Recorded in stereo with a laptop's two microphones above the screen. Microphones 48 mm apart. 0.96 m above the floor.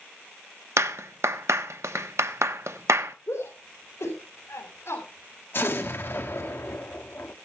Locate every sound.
0.8 s a clap: 75° right (ahead or behind), 0.9 m
3.3 s a shout: 75° left (ahead or behind), 3.5 m
5.5 s an explosion: 50° left (ahead or behind), 1.6 m